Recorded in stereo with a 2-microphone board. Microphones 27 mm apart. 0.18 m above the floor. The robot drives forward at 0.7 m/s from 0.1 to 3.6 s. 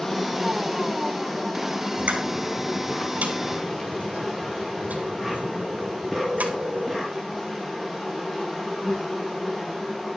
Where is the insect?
20° left (ahead or behind), 2 m; by 10.2 s 10° left (ahead or behind), 4.5 m.